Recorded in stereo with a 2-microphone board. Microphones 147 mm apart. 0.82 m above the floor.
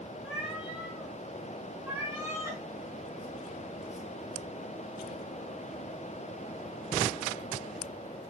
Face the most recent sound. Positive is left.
turn(degrees=-20)  # may be behind; listen again after turning